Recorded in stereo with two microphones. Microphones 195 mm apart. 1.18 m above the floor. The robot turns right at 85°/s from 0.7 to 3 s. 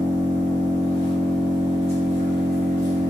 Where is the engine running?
120° left, 1.1 m; by 3.1 s 45° right, 1.1 m.